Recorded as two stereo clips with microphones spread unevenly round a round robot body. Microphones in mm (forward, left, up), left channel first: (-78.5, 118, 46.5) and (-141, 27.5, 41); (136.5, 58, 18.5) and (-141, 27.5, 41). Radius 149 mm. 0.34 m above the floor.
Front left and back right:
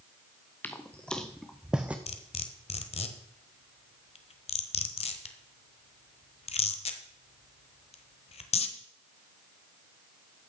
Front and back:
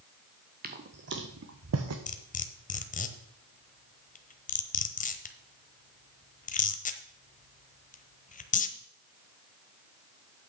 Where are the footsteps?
130° left, 1.6 m; by 2.0 s 155° left, 1.5 m.